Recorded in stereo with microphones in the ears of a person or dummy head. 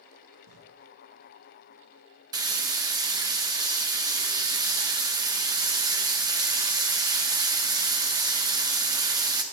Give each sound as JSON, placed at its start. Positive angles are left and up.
{"t": 0.5, "sound": "writing", "side_deg": -60, "distance_m": 1.2}
{"t": 2.3, "sound": "frying", "side_deg": -15, "distance_m": 0.7}